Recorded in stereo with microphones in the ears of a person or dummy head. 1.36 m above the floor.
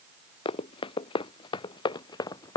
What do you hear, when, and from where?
0.5 s running footsteps: 35° left (ahead or behind); by 2.6 s 25° left (ahead or behind)